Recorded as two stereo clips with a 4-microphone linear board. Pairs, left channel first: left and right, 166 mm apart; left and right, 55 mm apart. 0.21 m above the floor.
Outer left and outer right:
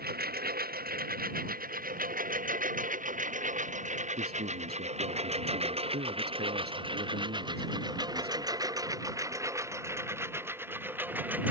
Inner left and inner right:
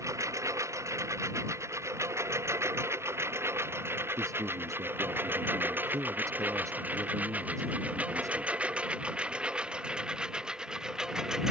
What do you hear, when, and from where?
0.0 s a lawn mower: 70° right (ahead or behind); by 11.5 s 10° right (ahead or behind)
4.2 s a man speaking: 75° right (ahead or behind)